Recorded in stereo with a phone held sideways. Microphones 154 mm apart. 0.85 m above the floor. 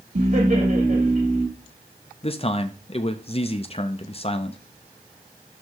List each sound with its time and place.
0.1 s laughter: 55° right (ahead or behind), 1.7 m
2.2 s a man speaking: 40° left (ahead or behind), 0.5 m